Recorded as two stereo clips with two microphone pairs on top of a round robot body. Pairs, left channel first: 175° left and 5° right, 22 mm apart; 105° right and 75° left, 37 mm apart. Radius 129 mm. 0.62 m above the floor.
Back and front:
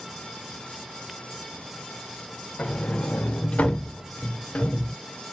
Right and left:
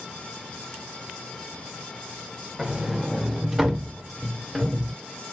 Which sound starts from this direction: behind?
A sliding door, at 2.6 s.